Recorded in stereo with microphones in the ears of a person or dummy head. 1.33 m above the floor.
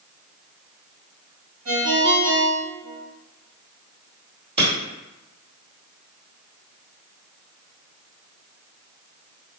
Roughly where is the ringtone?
Right.